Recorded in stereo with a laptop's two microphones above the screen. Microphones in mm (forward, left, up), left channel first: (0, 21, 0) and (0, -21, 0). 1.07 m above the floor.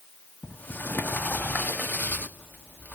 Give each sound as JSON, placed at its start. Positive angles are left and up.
{"t": 0.4, "sound": "a sliding door", "side_deg": 45, "distance_m": 1.4}